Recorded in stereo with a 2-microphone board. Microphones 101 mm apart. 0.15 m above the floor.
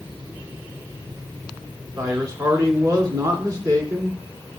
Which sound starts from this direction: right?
A man speaking, at 2.0 s.